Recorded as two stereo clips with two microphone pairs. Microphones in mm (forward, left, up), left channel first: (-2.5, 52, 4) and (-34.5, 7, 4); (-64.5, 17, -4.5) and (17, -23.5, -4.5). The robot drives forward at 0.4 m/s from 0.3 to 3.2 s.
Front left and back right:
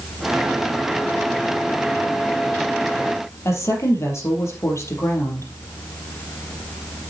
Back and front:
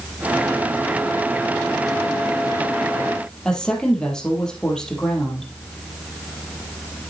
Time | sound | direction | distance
3.5 | a woman speaking | 75° left | 3.5 m